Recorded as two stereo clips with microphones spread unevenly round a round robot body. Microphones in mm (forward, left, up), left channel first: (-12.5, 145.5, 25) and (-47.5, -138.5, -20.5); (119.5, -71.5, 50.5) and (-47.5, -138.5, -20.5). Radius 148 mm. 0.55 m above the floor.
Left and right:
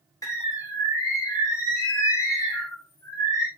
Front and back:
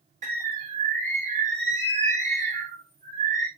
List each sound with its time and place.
0.2 s a bird: 165° left, 1.9 m